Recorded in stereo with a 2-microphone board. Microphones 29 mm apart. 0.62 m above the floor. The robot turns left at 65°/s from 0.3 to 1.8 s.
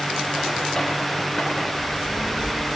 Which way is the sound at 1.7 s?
35° left (ahead or behind).